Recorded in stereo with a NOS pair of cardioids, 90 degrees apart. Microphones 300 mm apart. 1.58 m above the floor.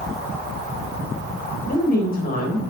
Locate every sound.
1.7 s a woman speaking: 30° left, 3 m